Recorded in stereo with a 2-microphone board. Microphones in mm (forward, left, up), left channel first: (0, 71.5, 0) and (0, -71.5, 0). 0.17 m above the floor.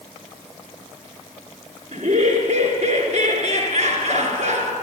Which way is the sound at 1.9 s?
60° right (ahead or behind).